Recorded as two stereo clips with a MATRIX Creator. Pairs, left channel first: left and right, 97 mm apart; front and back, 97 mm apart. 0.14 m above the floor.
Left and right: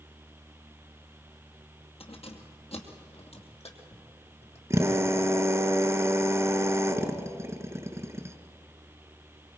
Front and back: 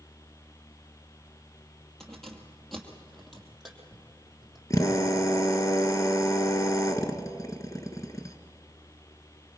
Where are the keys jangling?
85° left, 2 m; by 4.6 s 90° left, 3.5 m.